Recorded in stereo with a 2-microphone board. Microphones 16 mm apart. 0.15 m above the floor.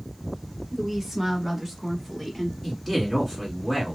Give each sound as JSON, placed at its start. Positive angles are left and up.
{"t": 0.7, "sound": "a woman speaking", "side_deg": -20, "distance_m": 1.3}
{"t": 2.6, "sound": "a man speaking", "side_deg": 10, "distance_m": 1.5}